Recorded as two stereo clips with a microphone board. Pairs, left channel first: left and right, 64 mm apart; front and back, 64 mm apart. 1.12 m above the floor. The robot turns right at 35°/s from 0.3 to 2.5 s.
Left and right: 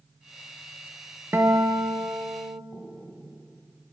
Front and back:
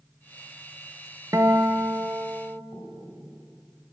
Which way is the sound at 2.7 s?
Straight behind.